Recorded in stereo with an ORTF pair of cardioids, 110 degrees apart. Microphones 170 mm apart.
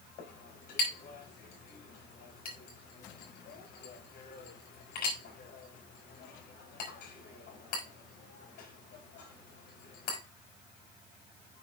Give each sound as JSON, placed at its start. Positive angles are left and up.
{"t": 0.2, "sound": "a clink", "azimuth_deg": 70, "distance_m": 4.0}